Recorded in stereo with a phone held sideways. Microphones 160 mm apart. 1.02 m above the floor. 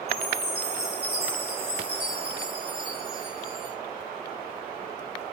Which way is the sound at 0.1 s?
85° right.